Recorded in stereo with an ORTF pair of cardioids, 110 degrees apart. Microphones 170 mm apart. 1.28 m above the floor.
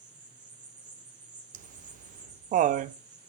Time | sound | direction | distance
0.0 | an insect | 45° right | 3 m
1.5 | laughter | 50° right | 0.6 m